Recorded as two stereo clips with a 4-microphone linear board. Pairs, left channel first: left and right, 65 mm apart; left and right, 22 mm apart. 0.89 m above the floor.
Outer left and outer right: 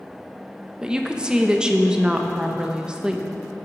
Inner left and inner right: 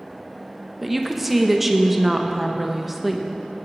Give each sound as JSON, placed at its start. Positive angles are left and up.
{"t": 0.8, "sound": "a woman speaking", "side_deg": -10, "distance_m": 0.7}